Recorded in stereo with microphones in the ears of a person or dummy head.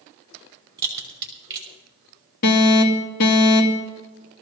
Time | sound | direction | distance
0.8 | a crack | 25° right (ahead or behind) | 5 m
2.4 | an alarm | 45° left (ahead or behind) | 2 m